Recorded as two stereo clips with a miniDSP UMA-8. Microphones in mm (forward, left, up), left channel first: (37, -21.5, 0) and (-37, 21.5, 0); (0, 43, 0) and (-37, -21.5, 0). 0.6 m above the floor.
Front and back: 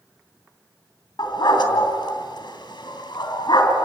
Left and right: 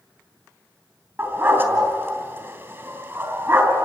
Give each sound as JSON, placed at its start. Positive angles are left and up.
{"t": 1.2, "sound": "a dog barking", "azimuth_deg": -65, "distance_m": 3.0}